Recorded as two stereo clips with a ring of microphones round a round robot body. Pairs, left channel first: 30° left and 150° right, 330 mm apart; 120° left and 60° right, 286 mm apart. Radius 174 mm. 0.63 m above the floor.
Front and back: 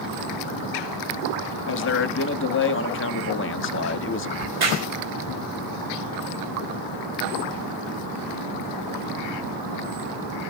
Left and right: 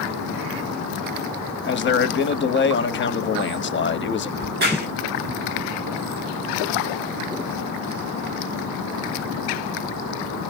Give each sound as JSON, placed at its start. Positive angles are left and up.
{"t": 1.7, "sound": "a man speaking", "azimuth_deg": 75, "distance_m": 1.0}
{"t": 4.4, "sound": "a crack", "azimuth_deg": -115, "distance_m": 2.5}